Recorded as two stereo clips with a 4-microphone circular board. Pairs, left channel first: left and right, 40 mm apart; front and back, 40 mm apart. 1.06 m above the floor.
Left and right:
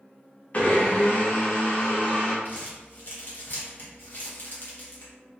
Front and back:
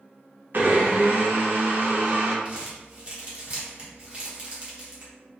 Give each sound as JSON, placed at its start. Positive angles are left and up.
{"t": 0.5, "sound": "a blender", "azimuth_deg": 145, "distance_m": 0.6}
{"t": 2.5, "sound": "crumpling", "azimuth_deg": 125, "distance_m": 0.9}